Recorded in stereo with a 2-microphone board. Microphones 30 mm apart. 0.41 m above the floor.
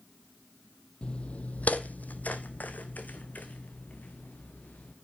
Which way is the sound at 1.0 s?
40° left (ahead or behind).